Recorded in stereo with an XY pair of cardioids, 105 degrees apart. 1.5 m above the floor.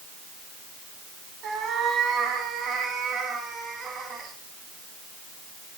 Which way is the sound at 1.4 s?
70° right.